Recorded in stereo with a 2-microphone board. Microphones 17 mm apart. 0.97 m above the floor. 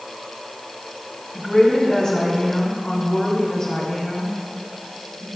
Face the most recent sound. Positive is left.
turn(degrees=45)  # may be behind; listen again after turning